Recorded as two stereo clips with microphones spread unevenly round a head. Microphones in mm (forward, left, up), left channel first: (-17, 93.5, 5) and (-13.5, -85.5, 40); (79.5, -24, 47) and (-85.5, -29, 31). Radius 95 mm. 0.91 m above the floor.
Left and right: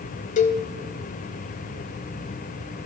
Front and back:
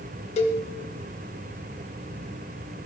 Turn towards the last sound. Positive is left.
turn(degrees=40)